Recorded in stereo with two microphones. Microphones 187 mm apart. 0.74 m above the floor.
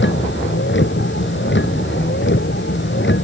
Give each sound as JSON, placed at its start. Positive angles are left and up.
{"t": 0.0, "sound": "a vehicle", "side_deg": 85}